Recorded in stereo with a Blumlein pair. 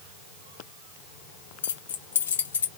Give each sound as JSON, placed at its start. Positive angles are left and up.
{"t": 1.6, "sound": "keys jangling", "azimuth_deg": 65, "distance_m": 0.9}